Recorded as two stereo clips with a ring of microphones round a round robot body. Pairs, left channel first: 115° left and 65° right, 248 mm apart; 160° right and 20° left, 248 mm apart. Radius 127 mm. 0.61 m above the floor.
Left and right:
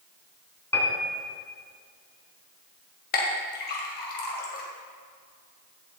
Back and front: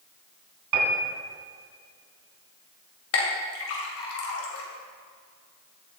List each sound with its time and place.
0.7 s a piano: 30° left, 2.5 m
3.1 s a clink: 165° left, 2 m